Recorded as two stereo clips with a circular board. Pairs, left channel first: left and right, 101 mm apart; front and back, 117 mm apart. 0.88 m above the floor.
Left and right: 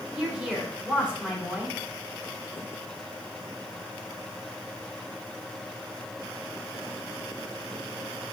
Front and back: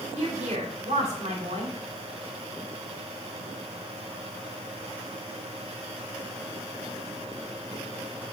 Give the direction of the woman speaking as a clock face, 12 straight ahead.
6 o'clock.